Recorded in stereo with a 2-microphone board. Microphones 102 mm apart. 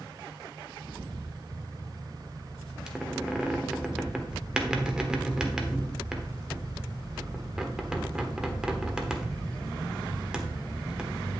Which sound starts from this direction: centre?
A squeak, at 2.9 s.